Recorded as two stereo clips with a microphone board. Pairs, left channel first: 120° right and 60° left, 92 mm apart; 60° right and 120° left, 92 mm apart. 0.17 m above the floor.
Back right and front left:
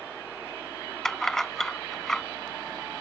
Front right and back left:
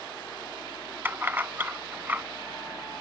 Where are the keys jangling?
160° left.